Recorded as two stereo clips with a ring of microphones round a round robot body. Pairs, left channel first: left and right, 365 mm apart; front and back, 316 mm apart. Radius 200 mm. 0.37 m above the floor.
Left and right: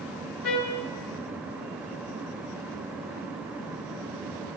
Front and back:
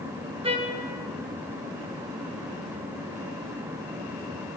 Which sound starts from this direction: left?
A trumpet, at 0.4 s.